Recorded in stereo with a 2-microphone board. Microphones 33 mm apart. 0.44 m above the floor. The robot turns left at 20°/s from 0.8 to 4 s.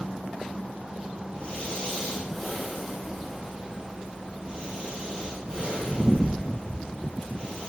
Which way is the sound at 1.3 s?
25° left (ahead or behind).